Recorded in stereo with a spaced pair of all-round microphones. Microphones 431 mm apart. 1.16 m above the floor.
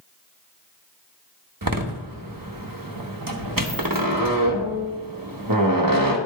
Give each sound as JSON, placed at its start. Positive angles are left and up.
{"t": 1.6, "sound": "a door slam", "side_deg": -50, "distance_m": 1.2}